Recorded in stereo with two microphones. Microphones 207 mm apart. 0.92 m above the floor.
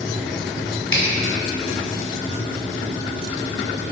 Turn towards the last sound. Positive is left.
turn(degrees=80)